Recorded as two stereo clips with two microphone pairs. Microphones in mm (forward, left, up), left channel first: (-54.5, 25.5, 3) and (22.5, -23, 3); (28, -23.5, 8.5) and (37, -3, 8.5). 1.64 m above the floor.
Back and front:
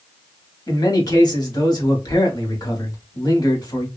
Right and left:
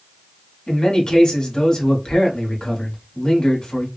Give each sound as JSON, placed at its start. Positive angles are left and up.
{"t": 0.7, "sound": "a man speaking", "azimuth_deg": -165, "distance_m": 1.2}